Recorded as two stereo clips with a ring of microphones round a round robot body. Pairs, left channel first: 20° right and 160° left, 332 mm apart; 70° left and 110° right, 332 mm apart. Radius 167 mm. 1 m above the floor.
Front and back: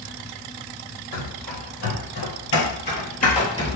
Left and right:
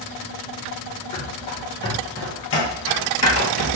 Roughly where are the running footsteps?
Ahead.